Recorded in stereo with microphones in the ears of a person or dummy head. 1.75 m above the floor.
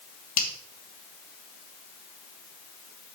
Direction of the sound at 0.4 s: 50° left (ahead or behind).